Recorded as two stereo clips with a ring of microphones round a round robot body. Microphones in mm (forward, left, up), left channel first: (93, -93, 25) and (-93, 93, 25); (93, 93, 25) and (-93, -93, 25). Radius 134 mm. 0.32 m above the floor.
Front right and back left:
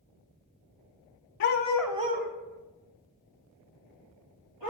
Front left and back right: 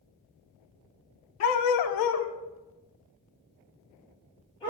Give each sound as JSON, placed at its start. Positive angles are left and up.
{"t": 1.4, "sound": "a dog barking", "azimuth_deg": 0, "distance_m": 0.6}